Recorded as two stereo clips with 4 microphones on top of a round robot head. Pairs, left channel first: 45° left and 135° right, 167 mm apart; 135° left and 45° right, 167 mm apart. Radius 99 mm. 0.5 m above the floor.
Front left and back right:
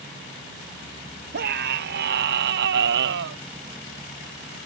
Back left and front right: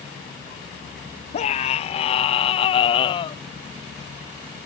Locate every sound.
1.3 s a scream: 170° right; by 3.4 s 160° right